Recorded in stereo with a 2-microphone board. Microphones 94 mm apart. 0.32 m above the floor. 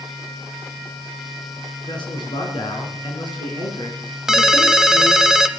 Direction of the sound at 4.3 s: 5° right (ahead or behind).